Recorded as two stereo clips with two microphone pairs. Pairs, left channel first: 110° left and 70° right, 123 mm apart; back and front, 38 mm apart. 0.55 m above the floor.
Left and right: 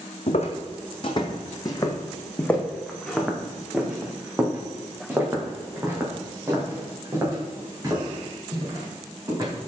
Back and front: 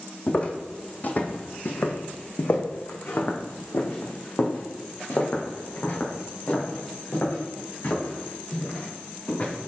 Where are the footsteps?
130° left, 1.3 m; by 9.5 s 130° right, 4.5 m.